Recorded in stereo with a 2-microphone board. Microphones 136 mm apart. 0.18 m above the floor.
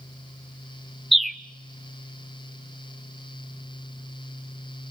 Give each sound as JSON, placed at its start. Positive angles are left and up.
{"t": 1.1, "sound": "a bird", "side_deg": 0, "distance_m": 0.7}